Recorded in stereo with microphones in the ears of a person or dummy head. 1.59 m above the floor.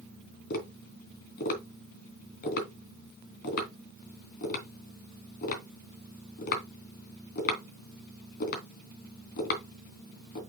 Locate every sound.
0.5 s tapping: 50° left (ahead or behind), 3 m